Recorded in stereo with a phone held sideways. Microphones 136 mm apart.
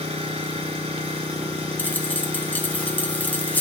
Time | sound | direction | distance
0.0 | an engine running | 45° right (ahead or behind) | 5 m
1.8 | a dropped coin | 10° left (ahead or behind) | 1.2 m